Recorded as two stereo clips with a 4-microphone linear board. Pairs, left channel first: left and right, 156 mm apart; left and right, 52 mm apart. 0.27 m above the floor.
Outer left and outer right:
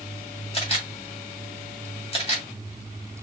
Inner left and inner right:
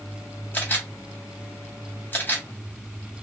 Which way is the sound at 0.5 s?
40° left (ahead or behind).